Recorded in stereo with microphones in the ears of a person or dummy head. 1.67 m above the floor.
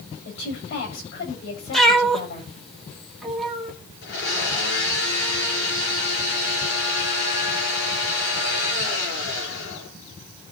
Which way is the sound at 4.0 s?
60° left (ahead or behind).